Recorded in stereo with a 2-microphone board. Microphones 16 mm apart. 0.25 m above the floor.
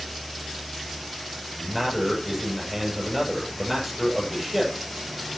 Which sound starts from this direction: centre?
A man speaking, at 1.6 s.